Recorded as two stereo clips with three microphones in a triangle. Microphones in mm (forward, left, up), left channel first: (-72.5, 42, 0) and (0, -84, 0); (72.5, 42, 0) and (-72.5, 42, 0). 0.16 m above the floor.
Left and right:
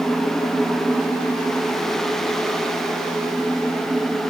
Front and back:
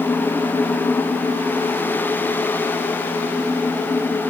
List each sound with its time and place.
Only background noise.